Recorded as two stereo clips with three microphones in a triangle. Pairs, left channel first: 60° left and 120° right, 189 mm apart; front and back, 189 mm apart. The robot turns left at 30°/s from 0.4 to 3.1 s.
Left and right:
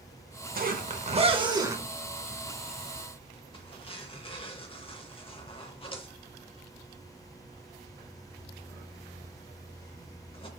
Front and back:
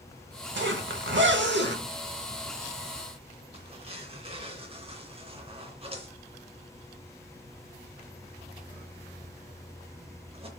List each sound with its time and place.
0.6 s a zipper: 160° right, 0.7 m; by 10.5 s 125° left, 0.7 m